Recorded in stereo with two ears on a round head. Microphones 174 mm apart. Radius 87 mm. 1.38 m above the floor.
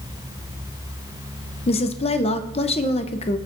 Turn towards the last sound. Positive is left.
turn(degrees=30)  # may be behind; listen again after turning